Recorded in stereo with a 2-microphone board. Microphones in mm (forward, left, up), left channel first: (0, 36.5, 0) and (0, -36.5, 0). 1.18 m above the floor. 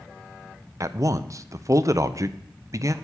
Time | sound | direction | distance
0.8 | a man speaking | 50° right (ahead or behind) | 0.5 m